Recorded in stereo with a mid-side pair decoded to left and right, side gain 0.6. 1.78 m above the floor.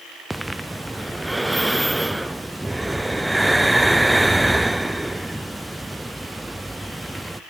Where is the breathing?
5° right, 0.7 m.